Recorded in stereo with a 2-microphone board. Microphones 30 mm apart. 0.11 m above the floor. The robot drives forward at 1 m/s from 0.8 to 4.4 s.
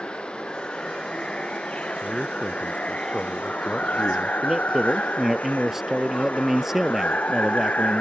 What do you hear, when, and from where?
0.0 s running water: 35° left (ahead or behind); by 8.0 s 55° left (ahead or behind)
2.0 s a man speaking: 5° right (ahead or behind)
4.4 s a man speaking: 10° right (ahead or behind)